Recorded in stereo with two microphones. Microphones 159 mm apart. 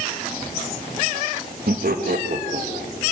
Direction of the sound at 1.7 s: 70° right (ahead or behind).